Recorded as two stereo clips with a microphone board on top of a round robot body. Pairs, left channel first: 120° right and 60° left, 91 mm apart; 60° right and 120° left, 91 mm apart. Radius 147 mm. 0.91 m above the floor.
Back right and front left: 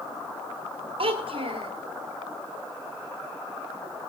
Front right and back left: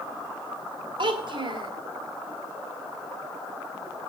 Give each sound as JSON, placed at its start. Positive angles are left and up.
{"t": 1.0, "sound": "a child speaking", "azimuth_deg": 85, "distance_m": 2.0}